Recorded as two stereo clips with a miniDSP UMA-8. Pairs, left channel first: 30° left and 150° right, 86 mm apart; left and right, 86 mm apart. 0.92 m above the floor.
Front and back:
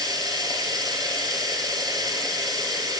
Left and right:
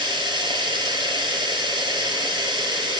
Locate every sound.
0.0 s running water: 115° right, 3 m